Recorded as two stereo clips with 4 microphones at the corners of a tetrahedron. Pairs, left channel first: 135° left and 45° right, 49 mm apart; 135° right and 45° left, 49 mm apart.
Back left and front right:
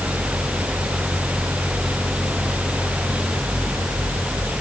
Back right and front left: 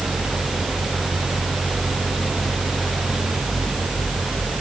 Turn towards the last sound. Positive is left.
No sound to turn to.